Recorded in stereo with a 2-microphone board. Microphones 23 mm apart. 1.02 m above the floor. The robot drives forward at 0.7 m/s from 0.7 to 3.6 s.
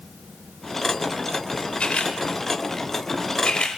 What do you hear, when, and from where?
1.8 s a camera shutter: 60° left (ahead or behind), 3.5 m; by 3.8 s 45° left (ahead or behind), 4 m